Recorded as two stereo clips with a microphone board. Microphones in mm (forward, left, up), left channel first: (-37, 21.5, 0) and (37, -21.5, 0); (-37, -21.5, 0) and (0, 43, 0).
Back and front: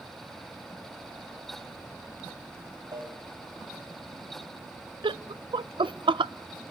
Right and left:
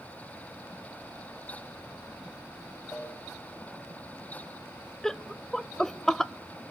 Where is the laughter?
35° right, 0.6 m.